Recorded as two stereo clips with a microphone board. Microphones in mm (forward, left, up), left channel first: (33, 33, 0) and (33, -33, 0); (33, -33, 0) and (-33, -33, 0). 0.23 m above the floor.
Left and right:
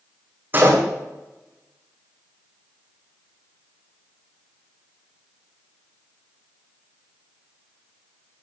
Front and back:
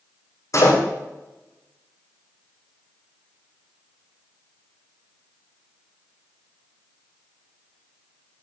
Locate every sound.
0.5 s a door slam: 30° right, 8.5 m